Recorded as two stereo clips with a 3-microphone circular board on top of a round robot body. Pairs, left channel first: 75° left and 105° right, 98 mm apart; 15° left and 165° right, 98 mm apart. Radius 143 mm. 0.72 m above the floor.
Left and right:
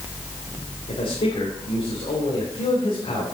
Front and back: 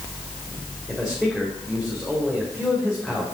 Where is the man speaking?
105° left, 3.5 m.